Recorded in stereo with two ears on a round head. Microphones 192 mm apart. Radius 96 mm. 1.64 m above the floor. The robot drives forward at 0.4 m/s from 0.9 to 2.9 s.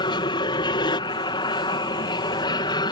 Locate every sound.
0.0 s an aircraft: 20° left (ahead or behind)